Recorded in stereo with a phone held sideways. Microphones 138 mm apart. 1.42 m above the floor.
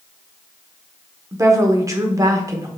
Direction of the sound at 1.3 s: 25° right (ahead or behind).